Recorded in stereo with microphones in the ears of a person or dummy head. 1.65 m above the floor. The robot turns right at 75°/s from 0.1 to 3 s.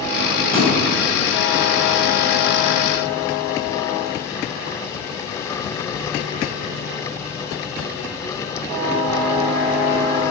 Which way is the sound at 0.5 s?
15° left (ahead or behind).